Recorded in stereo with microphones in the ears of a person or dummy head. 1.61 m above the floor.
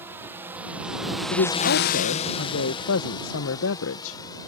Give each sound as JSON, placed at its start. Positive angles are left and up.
{"t": 0.0, "sound": "a drone", "side_deg": -15}
{"t": 1.3, "sound": "a woman speaking", "side_deg": 75}